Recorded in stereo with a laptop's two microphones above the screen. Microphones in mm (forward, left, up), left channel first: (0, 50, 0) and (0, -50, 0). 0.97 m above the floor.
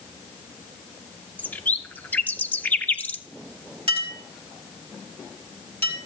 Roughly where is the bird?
Centre.